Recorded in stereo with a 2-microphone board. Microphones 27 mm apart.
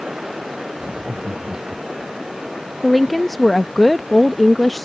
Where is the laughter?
80° right; by 2.1 s 75° right (ahead or behind).